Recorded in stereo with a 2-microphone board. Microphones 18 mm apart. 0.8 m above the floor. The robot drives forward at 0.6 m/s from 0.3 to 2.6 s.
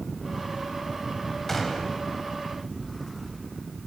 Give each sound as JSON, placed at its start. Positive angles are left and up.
{"t": 1.5, "sound": "a gunshot", "side_deg": 15, "distance_m": 3.5}